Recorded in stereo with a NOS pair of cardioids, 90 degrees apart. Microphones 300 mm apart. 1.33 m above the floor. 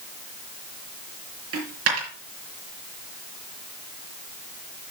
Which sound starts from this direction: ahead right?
A dropped coin, at 1.5 s.